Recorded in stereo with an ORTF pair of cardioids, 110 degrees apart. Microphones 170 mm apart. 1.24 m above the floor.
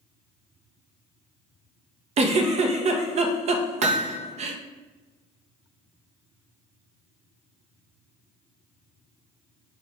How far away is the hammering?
About 0.6 m.